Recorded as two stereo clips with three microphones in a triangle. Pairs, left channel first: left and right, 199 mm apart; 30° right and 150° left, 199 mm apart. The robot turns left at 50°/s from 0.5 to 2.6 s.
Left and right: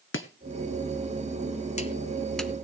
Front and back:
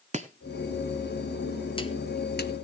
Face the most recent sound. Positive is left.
turn(degrees=-10)